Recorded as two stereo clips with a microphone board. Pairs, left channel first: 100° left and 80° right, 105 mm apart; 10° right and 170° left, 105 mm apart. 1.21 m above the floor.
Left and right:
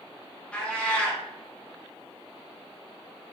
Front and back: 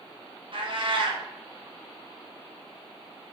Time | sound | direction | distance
0.5 | a cat meowing | 175° left | 0.6 m